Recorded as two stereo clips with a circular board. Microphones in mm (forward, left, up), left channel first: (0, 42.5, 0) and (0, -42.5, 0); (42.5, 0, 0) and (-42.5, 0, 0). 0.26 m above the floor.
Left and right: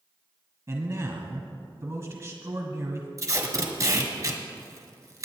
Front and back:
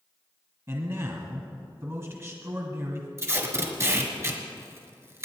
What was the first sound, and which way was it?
A man speaking, 135° right.